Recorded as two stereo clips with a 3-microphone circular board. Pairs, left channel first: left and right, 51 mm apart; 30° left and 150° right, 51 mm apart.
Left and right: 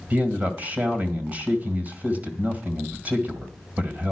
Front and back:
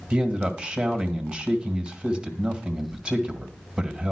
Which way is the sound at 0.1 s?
95° right.